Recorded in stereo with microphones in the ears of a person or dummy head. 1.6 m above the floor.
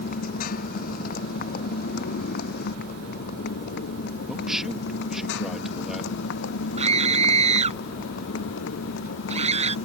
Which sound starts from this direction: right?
A scream, at 6.8 s.